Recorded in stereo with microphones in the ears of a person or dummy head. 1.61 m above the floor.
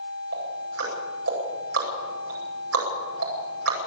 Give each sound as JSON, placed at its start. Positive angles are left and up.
{"t": 0.3, "sound": "ticking", "side_deg": -90, "distance_m": 9.0}